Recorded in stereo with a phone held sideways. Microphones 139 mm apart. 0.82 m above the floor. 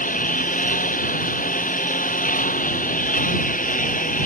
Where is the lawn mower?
75° left (ahead or behind).